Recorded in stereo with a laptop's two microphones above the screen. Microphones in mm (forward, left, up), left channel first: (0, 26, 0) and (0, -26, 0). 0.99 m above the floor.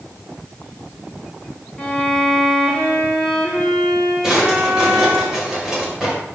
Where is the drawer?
10° right (ahead or behind), 1.8 m.